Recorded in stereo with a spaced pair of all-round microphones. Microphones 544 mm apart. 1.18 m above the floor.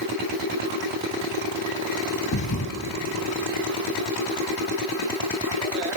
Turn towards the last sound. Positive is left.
turn(degrees=30)  # may be behind; listen again after turning